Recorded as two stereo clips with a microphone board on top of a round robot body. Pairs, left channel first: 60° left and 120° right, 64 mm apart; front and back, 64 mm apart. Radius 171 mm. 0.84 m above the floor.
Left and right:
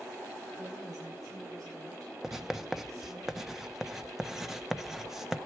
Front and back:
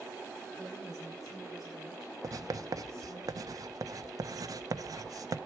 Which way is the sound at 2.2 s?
155° left.